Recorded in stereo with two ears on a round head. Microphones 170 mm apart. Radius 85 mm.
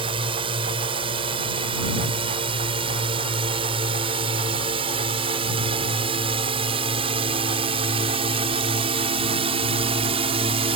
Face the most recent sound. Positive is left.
turn(degrees=-30)  # may be behind; listen again after turning